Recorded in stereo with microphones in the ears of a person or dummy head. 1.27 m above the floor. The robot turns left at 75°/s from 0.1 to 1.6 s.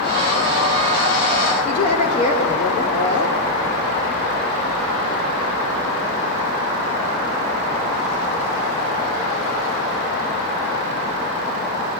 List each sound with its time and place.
1.6 s a woman speaking: 35° left (ahead or behind), 3 m